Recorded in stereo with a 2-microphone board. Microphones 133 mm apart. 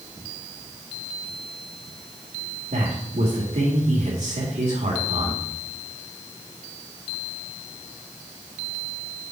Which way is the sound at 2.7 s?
75° right (ahead or behind).